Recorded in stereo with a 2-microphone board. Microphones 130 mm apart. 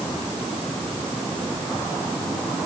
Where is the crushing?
No crushing in this recording.